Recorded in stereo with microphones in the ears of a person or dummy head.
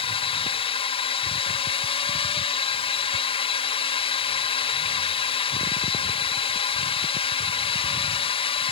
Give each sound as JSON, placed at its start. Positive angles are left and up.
{"t": 0.0, "sound": "a drone", "side_deg": 30}